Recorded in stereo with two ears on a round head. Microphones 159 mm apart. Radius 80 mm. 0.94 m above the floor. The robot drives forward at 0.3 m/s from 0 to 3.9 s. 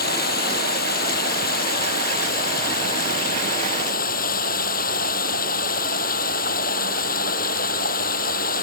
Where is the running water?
60° left (ahead or behind); by 8.6 s 55° left (ahead or behind).